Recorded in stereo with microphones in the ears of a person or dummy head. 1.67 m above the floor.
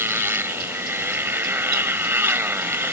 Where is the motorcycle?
10° right (ahead or behind).